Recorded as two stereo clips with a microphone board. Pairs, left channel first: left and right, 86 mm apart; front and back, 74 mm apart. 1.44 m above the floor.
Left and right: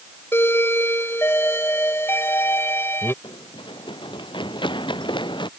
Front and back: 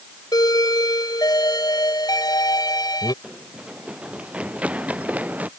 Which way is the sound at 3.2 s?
100° left.